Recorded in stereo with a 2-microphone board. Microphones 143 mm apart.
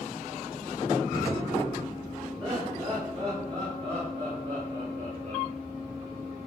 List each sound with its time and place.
2.4 s laughter: 40° right (ahead or behind), 4.5 m; by 5.5 s 60° right (ahead or behind), 2.5 m